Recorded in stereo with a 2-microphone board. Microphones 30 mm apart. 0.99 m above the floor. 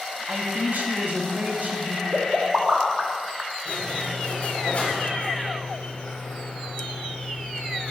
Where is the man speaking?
60° right (ahead or behind), 1.6 m.